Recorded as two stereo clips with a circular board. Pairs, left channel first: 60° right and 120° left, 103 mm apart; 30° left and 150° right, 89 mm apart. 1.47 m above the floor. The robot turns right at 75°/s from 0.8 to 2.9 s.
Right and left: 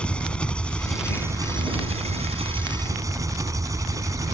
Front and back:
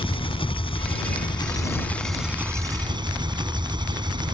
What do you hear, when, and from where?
0.0 s an engine running: 20° left; by 4.3 s 175° left